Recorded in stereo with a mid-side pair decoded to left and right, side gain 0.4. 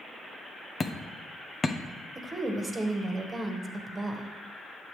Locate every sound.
0.8 s hammering: 35° left, 0.9 m
2.1 s a woman speaking: 35° right, 1.6 m